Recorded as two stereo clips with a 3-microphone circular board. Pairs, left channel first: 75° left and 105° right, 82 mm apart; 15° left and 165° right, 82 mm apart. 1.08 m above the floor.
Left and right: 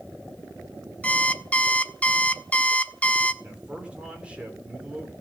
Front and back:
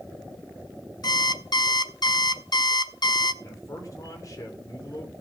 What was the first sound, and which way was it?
An alarm clock, 5° left.